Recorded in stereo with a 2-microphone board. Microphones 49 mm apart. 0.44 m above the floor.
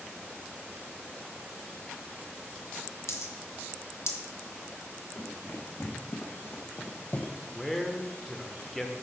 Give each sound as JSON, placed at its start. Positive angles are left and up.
{"t": 3.1, "sound": "a dropped coin", "side_deg": 70, "distance_m": 0.9}
{"t": 5.2, "sound": "running footsteps", "side_deg": 65, "distance_m": 1.9}
{"t": 7.5, "sound": "a man speaking", "side_deg": 5, "distance_m": 0.9}